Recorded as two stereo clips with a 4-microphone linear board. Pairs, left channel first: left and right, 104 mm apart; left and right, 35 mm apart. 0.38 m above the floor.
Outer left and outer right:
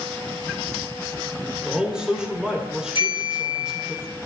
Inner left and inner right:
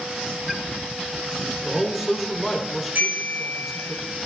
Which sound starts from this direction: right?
A bell, at 3.0 s.